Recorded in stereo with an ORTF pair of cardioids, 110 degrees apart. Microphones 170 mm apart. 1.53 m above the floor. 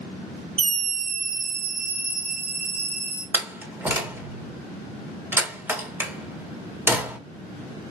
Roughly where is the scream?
Ahead right.